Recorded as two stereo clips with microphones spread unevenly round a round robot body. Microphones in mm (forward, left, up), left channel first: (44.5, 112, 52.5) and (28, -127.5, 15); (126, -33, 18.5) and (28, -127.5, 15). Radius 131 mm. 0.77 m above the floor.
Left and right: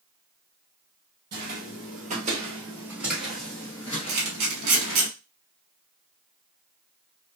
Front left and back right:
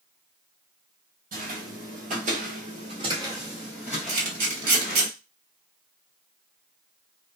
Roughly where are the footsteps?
Behind right.